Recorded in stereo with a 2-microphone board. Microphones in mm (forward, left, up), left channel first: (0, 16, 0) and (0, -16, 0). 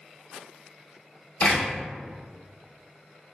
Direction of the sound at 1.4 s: 45° left (ahead or behind).